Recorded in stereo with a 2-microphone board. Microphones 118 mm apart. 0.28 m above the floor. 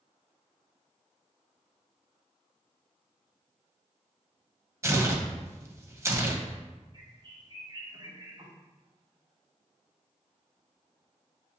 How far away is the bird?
About 1.1 m.